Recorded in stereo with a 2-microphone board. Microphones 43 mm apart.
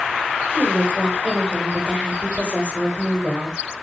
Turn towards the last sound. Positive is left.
turn(degrees=-20)  # may be behind; listen again after turning